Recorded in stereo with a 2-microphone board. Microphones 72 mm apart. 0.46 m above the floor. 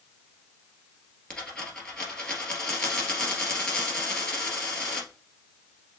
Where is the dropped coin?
10° left (ahead or behind), 2 m.